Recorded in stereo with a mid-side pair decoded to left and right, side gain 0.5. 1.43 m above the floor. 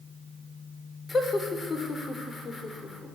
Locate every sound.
1.1 s laughter: 30° left, 5.5 m